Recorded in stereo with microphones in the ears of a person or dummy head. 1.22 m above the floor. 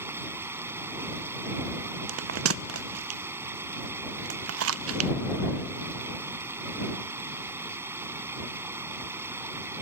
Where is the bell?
65° right (ahead or behind).